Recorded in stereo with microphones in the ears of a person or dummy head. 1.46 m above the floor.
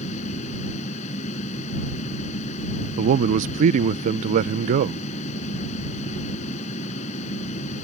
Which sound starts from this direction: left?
A fan, at 0.0 s.